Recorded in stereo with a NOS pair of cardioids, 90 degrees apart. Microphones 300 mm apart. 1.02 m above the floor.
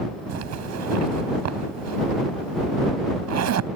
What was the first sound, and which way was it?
A zipper, 70° right.